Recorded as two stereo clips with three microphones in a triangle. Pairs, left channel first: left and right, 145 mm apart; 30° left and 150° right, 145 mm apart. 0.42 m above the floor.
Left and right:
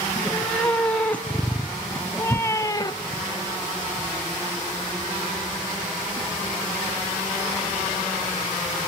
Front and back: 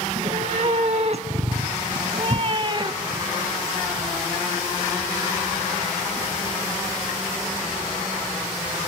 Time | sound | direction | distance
0.1 | a cat meowing | 175° left | 2.5 m